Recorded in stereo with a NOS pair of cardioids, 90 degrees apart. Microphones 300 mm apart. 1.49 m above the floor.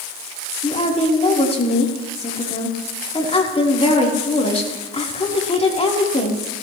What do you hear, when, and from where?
0.6 s a woman speaking: 20° left, 4.5 m